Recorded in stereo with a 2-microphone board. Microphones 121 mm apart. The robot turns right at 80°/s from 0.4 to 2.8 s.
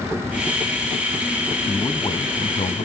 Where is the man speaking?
5° left, 1.4 m; by 2.9 s 100° left, 1.4 m.